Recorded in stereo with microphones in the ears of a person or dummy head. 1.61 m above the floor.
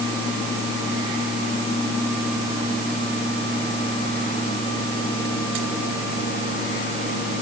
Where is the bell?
No bell in this recording.